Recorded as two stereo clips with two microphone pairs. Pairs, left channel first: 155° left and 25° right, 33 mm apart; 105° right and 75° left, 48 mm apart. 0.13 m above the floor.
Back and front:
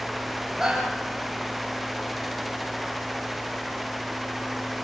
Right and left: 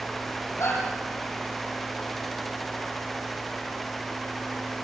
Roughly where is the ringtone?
No ringtone in this recording.